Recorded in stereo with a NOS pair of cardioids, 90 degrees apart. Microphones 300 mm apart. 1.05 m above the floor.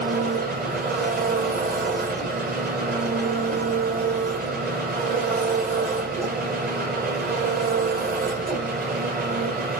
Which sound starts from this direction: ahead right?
An engine running, at 0.0 s.